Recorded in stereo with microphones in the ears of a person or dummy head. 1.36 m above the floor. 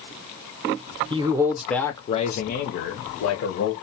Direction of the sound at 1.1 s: 25° right (ahead or behind).